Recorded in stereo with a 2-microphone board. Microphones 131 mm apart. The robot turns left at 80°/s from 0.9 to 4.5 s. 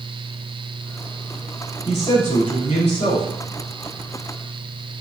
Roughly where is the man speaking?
Behind left.